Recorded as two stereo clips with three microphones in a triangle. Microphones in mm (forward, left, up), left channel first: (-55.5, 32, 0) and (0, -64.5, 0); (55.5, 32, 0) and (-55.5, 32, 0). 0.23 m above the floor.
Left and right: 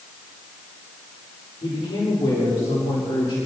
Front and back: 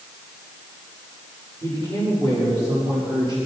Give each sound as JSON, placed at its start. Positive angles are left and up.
{"t": 1.6, "sound": "a man speaking", "azimuth_deg": 130, "distance_m": 7.0}